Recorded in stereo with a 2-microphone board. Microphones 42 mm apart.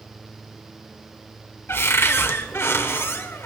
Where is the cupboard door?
70° left (ahead or behind), 1.3 m.